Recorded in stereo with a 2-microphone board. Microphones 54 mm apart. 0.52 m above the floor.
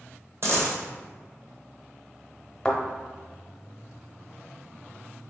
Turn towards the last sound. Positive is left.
turn(degrees=15)  # may be behind; listen again after turning